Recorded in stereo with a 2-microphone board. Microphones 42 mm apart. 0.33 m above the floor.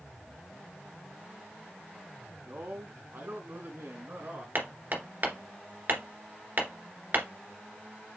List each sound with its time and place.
2.4 s a man speaking: 60° right (ahead or behind), 3 m; by 4.5 s 70° right (ahead or behind), 3.5 m
4.5 s hammering: 50° right (ahead or behind), 2 m